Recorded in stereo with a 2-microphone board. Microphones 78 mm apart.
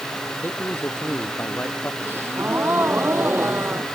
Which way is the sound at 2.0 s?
30° right (ahead or behind).